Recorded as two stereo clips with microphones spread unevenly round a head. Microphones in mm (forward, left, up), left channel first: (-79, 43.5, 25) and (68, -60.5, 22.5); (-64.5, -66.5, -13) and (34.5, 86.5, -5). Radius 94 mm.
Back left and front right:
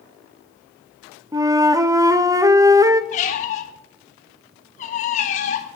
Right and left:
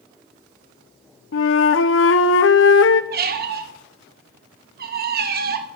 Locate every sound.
1.3 s a flute: 105° right, 0.8 m
3.1 s a squeak: 90° left, 1.2 m